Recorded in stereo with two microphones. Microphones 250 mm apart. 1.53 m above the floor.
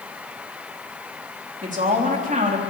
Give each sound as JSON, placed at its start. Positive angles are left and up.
{"t": 1.6, "sound": "a woman speaking", "side_deg": -30, "distance_m": 3.5}